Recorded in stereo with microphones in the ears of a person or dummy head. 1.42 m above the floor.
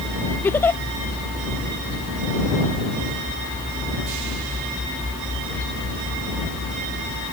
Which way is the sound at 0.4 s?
10° left (ahead or behind).